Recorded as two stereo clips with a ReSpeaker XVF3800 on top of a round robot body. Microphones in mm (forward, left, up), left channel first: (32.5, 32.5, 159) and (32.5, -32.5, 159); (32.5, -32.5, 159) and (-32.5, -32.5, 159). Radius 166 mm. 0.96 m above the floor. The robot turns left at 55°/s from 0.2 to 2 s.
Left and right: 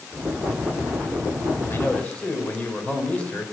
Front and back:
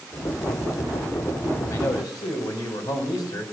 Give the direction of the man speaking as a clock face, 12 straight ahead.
11 o'clock.